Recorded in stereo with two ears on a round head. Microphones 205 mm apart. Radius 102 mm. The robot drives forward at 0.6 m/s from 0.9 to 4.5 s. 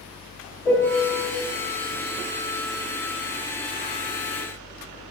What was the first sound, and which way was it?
A piano, 5° left (ahead or behind).